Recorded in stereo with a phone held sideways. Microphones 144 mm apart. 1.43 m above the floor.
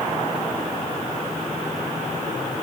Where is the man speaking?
No man speaking in this recording.